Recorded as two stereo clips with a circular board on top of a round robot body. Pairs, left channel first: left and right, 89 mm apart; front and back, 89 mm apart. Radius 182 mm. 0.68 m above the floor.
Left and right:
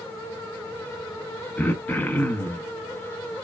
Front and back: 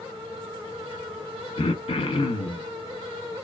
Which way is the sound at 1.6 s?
20° left.